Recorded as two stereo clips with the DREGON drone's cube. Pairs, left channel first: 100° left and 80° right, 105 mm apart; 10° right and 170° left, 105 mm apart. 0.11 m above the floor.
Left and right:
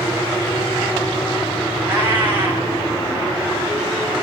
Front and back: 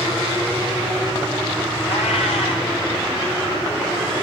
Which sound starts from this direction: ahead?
A cat meowing, at 1.8 s.